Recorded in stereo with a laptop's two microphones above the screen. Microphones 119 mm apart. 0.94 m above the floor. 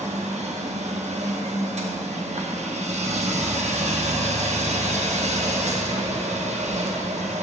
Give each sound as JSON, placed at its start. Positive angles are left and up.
{"t": 0.0, "sound": "a machine running", "side_deg": -70, "distance_m": 0.7}